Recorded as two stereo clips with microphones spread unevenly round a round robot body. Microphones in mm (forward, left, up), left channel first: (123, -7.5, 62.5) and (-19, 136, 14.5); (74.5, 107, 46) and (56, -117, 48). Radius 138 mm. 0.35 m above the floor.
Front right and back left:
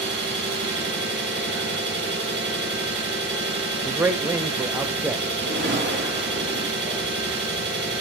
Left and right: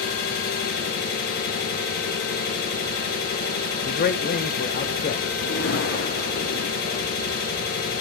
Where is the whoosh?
105° left, 7.5 m.